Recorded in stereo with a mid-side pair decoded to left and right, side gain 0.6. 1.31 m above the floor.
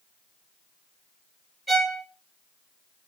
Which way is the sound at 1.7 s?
15° right.